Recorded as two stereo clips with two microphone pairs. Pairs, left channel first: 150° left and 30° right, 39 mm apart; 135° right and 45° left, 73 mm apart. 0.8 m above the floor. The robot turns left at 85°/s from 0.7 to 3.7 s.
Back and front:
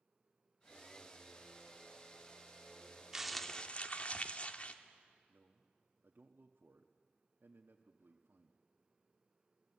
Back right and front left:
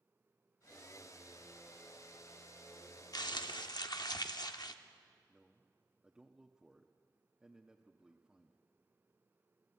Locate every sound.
3.1 s crumpling: 105° right, 1.1 m; by 4.8 s 155° right, 1.1 m
5.3 s a man speaking: 35° right, 1.2 m